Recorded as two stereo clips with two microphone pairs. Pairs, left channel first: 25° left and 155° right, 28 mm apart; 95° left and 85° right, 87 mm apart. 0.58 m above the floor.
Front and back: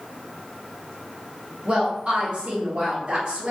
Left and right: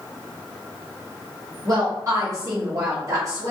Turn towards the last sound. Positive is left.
turn(degrees=-120)